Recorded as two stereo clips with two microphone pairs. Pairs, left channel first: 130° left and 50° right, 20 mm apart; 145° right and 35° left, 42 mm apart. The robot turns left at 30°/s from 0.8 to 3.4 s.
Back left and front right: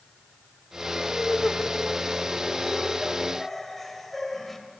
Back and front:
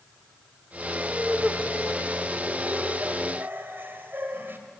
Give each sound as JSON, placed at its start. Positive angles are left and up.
{"t": 1.1, "sound": "laughter", "azimuth_deg": 120, "distance_m": 2.5}